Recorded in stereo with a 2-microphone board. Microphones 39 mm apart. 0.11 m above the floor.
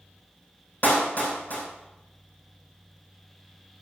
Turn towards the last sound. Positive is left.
turn(degrees=45)  # may be behind; listen again after turning